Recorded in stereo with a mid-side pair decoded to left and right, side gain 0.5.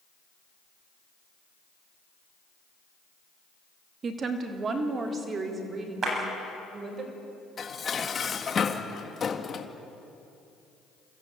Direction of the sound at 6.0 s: 40° right.